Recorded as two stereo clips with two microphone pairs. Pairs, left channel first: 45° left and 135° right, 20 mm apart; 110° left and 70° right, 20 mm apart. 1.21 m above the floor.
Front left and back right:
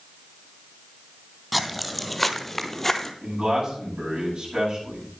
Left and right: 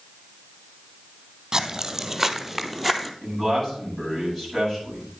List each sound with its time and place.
1.5 s footsteps: 45° right, 1.3 m; by 3.1 s 60° left, 1.3 m
3.2 s a man speaking: straight behind, 9 m